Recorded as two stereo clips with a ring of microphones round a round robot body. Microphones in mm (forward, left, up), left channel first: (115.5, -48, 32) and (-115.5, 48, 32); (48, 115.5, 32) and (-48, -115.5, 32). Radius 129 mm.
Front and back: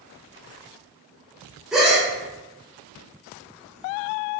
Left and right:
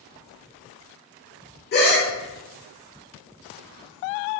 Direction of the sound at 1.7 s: 70° left.